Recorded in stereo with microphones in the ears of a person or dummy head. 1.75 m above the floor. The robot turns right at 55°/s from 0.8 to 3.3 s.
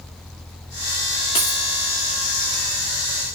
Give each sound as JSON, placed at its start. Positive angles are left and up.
{"t": 1.4, "sound": "a dropped coin", "side_deg": 20, "distance_m": 1.1}